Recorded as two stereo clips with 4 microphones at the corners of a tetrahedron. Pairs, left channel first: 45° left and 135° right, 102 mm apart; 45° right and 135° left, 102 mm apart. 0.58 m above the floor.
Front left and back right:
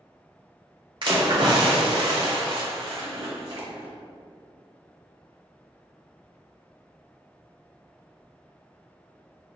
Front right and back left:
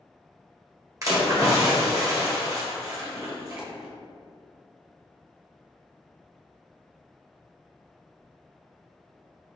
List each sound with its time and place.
1.0 s a splash: 170° right, 1.2 m
3.6 s a dropped coin: 145° right, 1.6 m